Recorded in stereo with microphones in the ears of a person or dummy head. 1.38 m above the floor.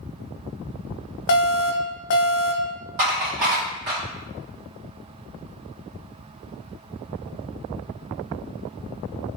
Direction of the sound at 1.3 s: 60° left (ahead or behind).